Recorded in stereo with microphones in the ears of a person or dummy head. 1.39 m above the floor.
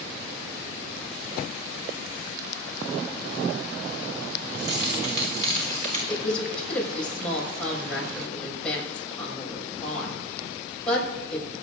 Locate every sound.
4.5 s keys jangling: 65° right (ahead or behind), 3 m; by 6.0 s 45° right (ahead or behind), 3.5 m
6.1 s a woman speaking: centre (ahead or behind), 6 m